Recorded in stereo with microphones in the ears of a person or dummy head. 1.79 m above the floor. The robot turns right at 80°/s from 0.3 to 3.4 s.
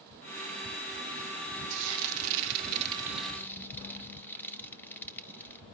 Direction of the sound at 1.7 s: 60° right (ahead or behind).